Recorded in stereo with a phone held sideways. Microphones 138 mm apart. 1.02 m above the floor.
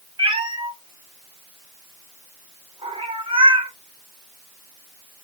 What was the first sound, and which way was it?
A cat meowing, 35° right (ahead or behind).